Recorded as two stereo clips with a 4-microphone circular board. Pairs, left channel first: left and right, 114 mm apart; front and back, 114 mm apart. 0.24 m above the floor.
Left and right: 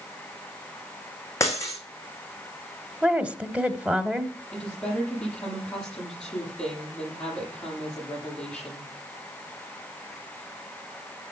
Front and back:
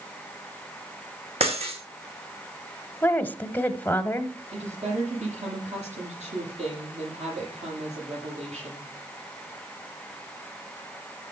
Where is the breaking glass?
155° left, 3 m.